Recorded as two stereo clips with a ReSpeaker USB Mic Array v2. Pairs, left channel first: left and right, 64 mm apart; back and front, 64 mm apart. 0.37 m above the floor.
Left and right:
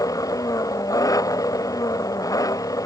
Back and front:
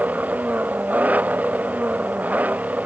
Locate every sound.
0.0 s an engine running: 65° left